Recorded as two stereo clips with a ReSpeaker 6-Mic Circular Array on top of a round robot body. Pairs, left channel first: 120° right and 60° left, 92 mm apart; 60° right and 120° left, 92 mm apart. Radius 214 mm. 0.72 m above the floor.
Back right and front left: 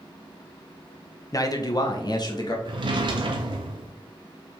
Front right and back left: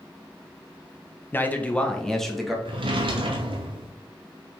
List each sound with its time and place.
1.3 s a man speaking: 115° right, 1.1 m; by 2.5 s 150° right, 1.7 m
2.6 s a drawer: 95° left, 0.7 m